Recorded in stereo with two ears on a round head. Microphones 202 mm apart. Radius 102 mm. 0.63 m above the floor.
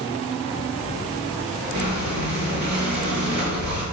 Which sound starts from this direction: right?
Breathing, at 1.7 s.